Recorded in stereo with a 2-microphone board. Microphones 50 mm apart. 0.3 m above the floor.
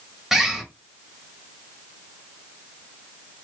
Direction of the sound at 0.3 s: 5° right (ahead or behind).